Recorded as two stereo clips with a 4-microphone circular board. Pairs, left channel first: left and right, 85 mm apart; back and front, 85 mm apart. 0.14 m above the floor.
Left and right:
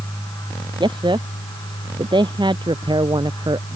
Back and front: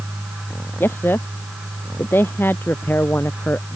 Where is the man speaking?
115° right.